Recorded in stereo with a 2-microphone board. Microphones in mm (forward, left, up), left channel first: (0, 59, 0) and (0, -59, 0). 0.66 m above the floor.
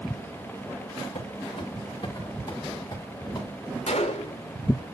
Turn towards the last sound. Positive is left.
turn(degrees=75)  # may be behind; listen again after turning